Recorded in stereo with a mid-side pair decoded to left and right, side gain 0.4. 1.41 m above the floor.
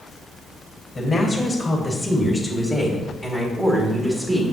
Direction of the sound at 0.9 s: 35° left.